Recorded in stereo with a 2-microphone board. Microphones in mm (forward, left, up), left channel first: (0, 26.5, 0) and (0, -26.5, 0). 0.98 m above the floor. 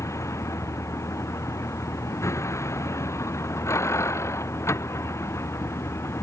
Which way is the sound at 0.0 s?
70° left (ahead or behind).